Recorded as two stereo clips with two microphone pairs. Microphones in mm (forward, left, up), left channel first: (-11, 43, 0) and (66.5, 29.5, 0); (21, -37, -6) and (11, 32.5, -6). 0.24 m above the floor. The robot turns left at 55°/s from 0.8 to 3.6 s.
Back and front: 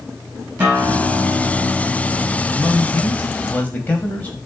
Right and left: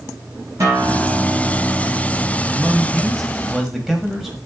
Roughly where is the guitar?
Ahead left.